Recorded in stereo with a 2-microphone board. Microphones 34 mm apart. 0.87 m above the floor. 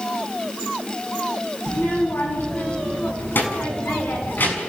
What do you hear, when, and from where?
1.7 s a child speaking: 85° left, 6.5 m; by 4.6 s 70° left (ahead or behind), 6 m